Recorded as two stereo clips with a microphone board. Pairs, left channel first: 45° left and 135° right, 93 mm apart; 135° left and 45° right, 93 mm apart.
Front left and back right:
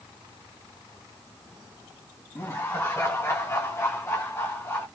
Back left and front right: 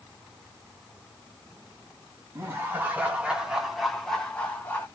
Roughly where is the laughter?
Ahead.